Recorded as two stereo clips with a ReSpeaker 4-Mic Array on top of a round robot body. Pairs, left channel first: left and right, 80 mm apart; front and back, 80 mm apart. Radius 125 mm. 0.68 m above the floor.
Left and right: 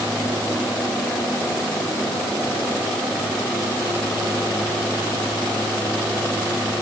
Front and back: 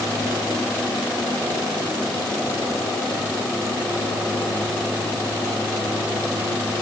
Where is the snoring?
I don't hear snoring.